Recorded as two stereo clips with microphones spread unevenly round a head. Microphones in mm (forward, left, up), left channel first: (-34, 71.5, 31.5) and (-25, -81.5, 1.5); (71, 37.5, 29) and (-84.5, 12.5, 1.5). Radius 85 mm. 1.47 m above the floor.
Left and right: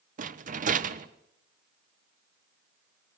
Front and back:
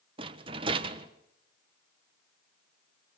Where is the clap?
I don't hear a clap.